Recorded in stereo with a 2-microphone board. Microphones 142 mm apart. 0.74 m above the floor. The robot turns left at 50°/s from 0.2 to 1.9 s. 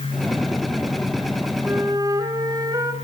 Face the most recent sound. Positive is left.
turn(degrees=-25)  # may be behind; listen again after turning